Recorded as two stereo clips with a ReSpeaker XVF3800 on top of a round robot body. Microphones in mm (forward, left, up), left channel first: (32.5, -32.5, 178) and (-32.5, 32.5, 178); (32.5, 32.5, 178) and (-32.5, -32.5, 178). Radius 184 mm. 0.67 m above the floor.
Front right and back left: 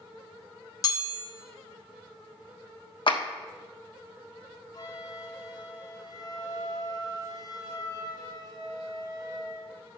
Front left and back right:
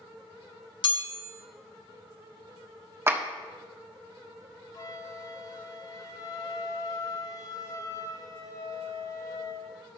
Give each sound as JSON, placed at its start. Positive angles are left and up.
{"t": 0.8, "sound": "a chime", "azimuth_deg": 10, "distance_m": 1.5}
{"t": 3.1, "sound": "a clap", "azimuth_deg": -70, "distance_m": 1.5}
{"t": 4.7, "sound": "a flute", "azimuth_deg": 0, "distance_m": 1.4}